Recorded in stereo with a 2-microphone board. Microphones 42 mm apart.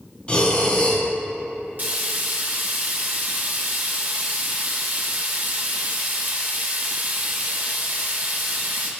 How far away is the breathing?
About 3.5 m.